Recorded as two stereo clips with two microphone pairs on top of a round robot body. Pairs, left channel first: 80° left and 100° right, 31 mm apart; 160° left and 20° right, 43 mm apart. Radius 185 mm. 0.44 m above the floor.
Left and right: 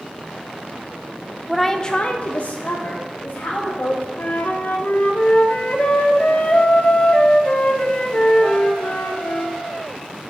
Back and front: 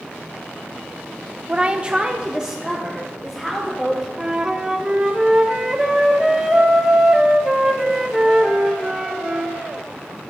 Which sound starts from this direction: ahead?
A woman speaking, at 1.5 s.